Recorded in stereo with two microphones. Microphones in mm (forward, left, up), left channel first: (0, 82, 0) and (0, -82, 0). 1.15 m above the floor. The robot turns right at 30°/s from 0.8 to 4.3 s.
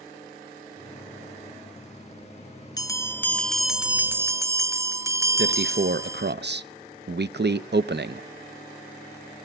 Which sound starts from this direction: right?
A man speaking, at 5.4 s.